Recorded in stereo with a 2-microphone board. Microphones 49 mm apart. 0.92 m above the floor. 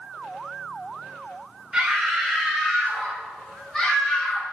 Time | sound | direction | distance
1.7 | a scream | 10° right (ahead or behind) | 3.5 m